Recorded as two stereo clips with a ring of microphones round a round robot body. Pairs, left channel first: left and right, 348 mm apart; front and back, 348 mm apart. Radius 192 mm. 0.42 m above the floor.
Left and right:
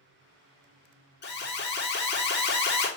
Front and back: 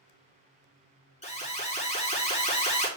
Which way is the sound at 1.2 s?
55° left.